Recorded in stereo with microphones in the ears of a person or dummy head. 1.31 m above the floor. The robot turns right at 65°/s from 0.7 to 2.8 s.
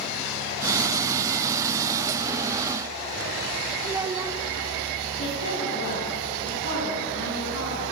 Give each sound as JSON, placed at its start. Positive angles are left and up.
{"t": 3.8, "sound": "a child speaking", "side_deg": -15, "distance_m": 2.0}
{"t": 5.2, "sound": "a woman speaking", "side_deg": 85, "distance_m": 10.0}